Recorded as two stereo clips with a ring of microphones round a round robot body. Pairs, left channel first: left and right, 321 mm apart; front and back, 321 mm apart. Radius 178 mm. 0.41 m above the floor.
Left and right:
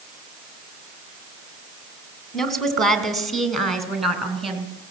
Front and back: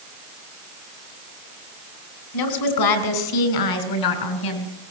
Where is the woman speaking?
Straight ahead, 4 m.